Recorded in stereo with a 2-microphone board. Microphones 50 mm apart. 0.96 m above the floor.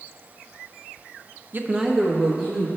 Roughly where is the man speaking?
Right.